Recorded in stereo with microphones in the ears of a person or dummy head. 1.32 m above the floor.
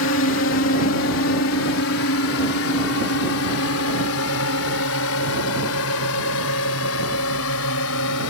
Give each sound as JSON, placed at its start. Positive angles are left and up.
{"t": 0.0, "sound": "a drone", "side_deg": 60}